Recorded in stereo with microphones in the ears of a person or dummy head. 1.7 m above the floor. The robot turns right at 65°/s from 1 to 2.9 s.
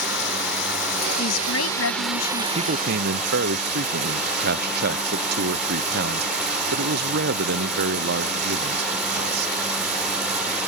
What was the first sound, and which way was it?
Running water, 110° left.